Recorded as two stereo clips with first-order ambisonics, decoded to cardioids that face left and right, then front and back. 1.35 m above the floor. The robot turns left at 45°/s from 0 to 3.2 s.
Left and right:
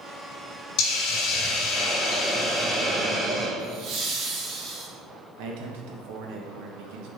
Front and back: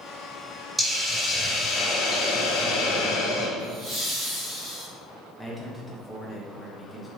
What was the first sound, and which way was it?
A hiss, 95° left.